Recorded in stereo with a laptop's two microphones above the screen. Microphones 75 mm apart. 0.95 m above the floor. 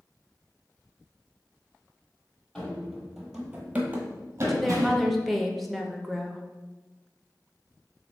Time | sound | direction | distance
2.5 | running footsteps | 10° left (ahead or behind) | 1.2 m
4.5 | a woman speaking | centre (ahead or behind) | 0.6 m